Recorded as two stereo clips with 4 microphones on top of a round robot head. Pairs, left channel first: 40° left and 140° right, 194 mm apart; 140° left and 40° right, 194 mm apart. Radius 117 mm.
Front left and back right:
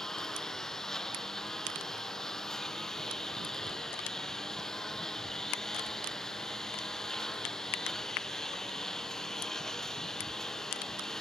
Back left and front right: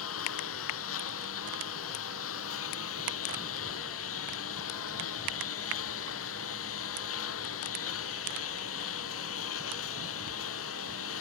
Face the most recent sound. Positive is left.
turn(degrees=130)